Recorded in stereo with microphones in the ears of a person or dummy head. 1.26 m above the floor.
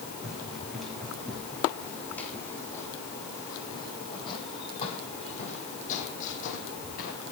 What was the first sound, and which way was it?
Running footsteps, 5° right (ahead or behind).